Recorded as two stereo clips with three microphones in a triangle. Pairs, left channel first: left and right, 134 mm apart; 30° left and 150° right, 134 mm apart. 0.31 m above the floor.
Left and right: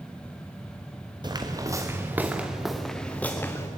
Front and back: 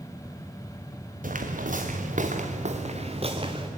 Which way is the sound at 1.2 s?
150° right.